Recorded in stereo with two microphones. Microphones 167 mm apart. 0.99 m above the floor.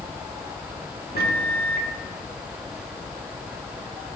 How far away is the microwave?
About 1.5 m.